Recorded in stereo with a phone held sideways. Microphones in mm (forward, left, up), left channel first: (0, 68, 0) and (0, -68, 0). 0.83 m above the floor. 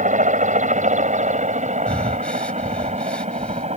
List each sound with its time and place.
0.0 s a helicopter: 65° right (ahead or behind); by 3.8 s 55° right (ahead or behind)
1.9 s breathing: 10° left (ahead or behind)